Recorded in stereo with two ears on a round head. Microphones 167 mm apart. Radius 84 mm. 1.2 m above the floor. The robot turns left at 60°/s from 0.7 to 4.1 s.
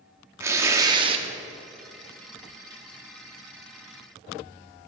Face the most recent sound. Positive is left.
turn(degrees=130)